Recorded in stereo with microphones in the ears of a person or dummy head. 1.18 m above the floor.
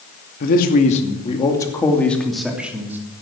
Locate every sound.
0.4 s a man speaking: 45° left (ahead or behind), 2.5 m; by 3.0 s 10° right (ahead or behind), 3 m